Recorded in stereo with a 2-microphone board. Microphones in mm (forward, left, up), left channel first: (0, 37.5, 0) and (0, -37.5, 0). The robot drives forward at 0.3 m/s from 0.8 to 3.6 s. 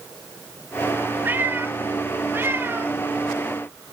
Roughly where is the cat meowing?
Right.